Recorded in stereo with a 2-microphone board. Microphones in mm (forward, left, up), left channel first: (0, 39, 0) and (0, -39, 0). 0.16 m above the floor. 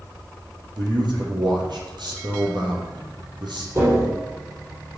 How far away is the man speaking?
About 4.5 m.